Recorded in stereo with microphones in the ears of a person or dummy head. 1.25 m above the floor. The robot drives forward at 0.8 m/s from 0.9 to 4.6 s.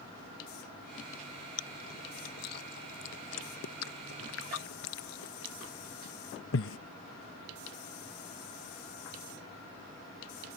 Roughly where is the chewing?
Left.